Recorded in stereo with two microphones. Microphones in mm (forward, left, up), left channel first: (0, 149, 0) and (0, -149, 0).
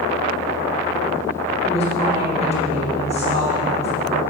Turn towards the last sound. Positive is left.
turn(degrees=20)  # may be behind; listen again after turning